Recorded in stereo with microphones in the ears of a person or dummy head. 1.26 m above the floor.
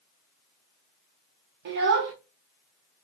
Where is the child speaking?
55° right (ahead or behind), 0.6 m.